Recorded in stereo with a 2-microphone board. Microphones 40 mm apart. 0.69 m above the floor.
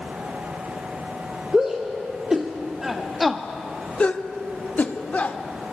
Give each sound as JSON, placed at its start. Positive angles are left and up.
{"t": 1.5, "sound": "a shout", "side_deg": -25, "distance_m": 2.5}